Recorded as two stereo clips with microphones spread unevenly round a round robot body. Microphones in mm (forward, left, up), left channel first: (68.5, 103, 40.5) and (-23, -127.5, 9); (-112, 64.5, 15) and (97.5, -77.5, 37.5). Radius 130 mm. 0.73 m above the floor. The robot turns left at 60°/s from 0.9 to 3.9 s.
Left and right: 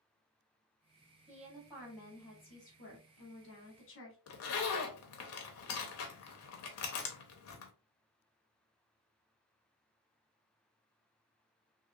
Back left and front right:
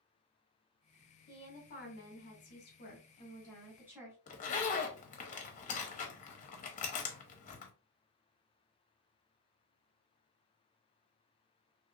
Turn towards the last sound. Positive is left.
turn(degrees=95)